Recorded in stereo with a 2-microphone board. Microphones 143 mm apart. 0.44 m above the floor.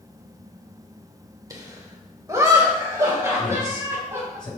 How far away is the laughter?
About 1.4 m.